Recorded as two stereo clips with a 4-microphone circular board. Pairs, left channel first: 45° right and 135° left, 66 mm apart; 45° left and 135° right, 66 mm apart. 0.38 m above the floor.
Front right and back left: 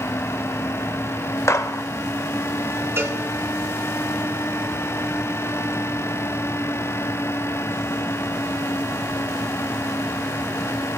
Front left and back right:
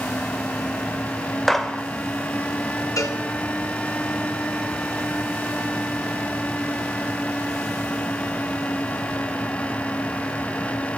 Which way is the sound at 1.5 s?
40° right.